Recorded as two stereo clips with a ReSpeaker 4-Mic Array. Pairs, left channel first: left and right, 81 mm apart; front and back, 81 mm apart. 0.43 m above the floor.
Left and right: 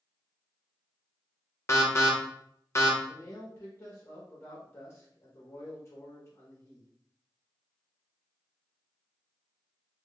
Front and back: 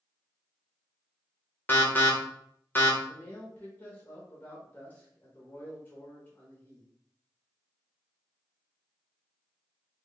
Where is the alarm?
55° left, 0.8 m.